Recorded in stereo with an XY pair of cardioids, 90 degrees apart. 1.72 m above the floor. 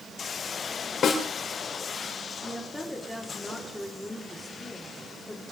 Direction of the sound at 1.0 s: 65° left.